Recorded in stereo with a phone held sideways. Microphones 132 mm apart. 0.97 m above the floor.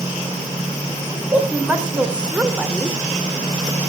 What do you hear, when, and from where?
1.1 s a woman speaking: 10° right (ahead or behind), 4 m; by 3.0 s 5° right (ahead or behind), 2.5 m